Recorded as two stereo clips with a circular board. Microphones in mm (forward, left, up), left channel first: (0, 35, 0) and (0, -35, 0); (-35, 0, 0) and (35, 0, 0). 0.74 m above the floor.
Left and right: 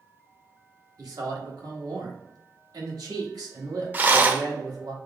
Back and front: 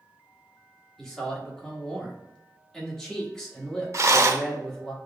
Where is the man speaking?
100° right, 1.3 m.